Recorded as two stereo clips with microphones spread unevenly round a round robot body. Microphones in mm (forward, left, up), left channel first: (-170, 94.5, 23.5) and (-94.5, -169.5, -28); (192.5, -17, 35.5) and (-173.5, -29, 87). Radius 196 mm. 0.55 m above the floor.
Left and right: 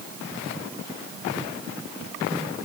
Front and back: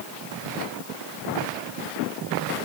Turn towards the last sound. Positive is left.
No sound to turn to.